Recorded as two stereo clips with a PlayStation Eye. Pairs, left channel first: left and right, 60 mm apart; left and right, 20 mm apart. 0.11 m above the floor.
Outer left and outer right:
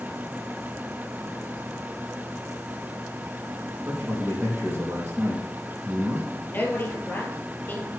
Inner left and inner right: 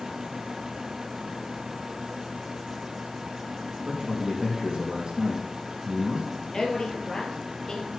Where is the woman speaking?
30° left (ahead or behind), 3 m.